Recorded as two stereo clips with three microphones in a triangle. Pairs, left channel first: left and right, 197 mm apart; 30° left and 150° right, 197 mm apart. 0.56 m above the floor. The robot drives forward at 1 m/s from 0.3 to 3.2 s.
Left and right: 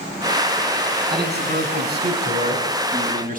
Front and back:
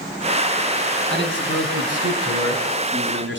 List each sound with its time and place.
1.1 s a man speaking: 120° right, 6.5 m; by 3.4 s 135° right, 8 m